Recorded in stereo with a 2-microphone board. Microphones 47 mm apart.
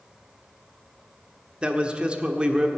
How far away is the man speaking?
About 1.3 m.